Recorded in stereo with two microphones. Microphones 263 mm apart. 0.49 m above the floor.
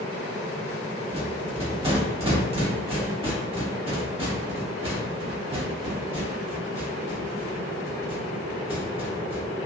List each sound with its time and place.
1.1 s a rattle: 20° right (ahead or behind), 1.1 m